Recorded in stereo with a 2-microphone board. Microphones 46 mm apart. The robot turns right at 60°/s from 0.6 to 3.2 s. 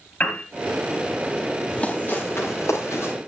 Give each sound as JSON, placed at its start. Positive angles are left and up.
{"t": 0.2, "sound": "a piano", "side_deg": 30, "distance_m": 4.0}
{"t": 1.7, "sound": "running footsteps", "side_deg": 20, "distance_m": 7.0}